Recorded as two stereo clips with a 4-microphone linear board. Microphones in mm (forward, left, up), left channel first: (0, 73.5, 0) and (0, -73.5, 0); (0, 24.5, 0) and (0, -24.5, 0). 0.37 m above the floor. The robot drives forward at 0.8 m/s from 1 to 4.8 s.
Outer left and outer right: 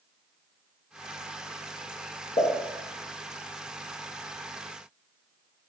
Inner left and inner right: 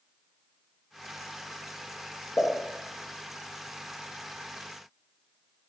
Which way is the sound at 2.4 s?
40° left (ahead or behind).